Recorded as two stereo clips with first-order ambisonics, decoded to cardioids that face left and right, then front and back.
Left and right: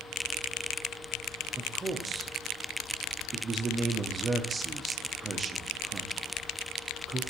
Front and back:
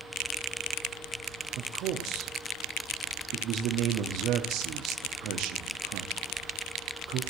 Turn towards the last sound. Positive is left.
turn(degrees=-160)